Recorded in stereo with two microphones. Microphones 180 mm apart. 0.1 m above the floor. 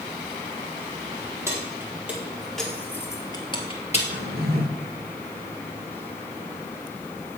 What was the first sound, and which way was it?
Keys jangling, 15° right (ahead or behind).